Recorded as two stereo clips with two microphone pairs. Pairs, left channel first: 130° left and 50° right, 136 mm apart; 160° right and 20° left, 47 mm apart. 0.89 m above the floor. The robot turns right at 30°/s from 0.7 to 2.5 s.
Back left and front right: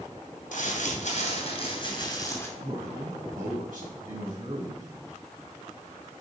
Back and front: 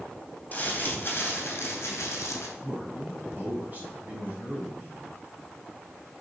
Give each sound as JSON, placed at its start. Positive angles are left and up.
{"t": 0.5, "sound": "crumpling", "azimuth_deg": 145, "distance_m": 2.5}
{"t": 2.6, "sound": "a man speaking", "azimuth_deg": -35, "distance_m": 4.0}